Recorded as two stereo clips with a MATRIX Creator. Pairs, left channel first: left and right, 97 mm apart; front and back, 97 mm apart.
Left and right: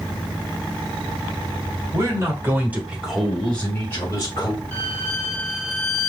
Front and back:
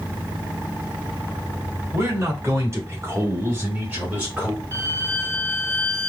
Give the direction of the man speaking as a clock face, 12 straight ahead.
4 o'clock.